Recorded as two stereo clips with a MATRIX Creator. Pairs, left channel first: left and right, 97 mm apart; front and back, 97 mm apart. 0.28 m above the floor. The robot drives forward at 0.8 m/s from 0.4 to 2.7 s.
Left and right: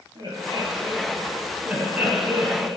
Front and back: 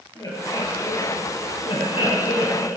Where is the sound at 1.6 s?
15° right, 3 m; by 2.7 s 25° right, 2 m.